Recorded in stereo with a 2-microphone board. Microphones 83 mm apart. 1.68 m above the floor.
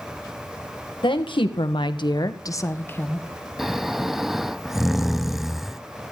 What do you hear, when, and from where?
1.0 s a woman speaking: 80° left, 1.9 m; by 3.3 s 15° left (ahead or behind), 1.9 m
3.6 s snoring: 5° right (ahead or behind), 0.5 m